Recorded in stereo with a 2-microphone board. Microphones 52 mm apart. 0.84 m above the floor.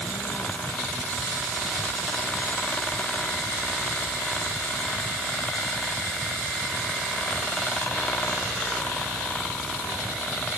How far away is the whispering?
No whispering in this recording.